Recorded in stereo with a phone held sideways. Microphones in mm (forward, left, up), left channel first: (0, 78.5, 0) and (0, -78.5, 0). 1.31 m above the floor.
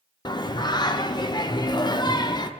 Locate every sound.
0.2 s singing: 25° left (ahead or behind), 0.6 m